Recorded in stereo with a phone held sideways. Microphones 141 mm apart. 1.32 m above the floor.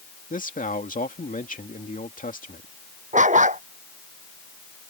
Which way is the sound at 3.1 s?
55° right (ahead or behind).